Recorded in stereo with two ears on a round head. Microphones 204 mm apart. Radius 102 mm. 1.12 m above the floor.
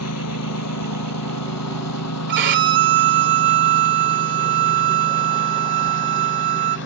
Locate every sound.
0.0 s a lawn mower: 80° left; by 6.9 s 55° left (ahead or behind)
2.3 s a violin: 55° right (ahead or behind)